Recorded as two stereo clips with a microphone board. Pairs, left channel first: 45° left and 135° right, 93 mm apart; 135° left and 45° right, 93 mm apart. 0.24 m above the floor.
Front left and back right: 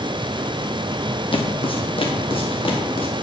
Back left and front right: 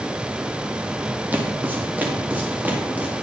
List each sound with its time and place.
1.3 s footsteps: 25° left, 2.5 m; by 3.1 s 30° left, 3.5 m